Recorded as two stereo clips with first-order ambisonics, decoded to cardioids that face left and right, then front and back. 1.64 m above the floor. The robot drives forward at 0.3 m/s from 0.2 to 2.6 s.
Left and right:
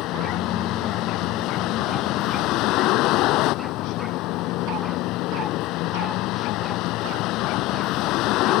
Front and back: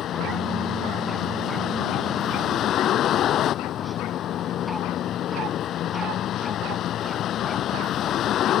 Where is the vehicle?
50° left; by 8.6 s 55° left.